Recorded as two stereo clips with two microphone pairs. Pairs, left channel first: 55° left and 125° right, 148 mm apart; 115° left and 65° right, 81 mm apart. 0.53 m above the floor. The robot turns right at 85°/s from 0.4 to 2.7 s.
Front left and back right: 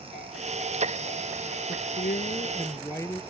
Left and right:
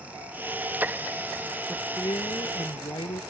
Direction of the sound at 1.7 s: 40° left.